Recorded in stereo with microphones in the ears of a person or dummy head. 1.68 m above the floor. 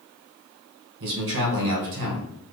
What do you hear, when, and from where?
1.0 s a man speaking: 55° right (ahead or behind), 1.0 m